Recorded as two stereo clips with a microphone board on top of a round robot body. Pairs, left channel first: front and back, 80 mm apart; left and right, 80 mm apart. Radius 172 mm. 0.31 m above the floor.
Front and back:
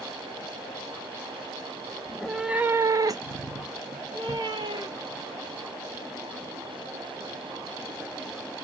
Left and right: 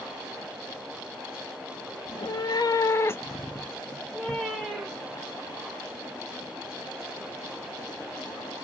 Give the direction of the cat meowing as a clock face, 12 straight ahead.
9 o'clock.